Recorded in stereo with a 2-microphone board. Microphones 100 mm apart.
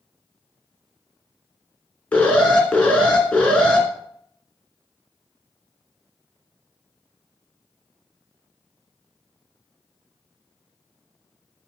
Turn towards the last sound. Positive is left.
turn(degrees=10)  # may be behind; listen again after turning